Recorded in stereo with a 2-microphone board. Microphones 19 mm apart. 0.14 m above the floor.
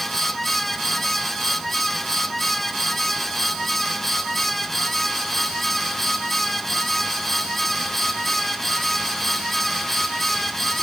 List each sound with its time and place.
Only background noise.